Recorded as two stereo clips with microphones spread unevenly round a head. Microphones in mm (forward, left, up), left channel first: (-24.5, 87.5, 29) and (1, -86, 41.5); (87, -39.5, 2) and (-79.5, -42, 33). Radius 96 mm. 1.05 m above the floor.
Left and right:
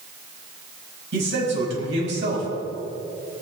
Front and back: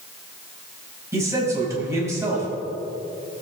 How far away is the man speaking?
About 5.5 m.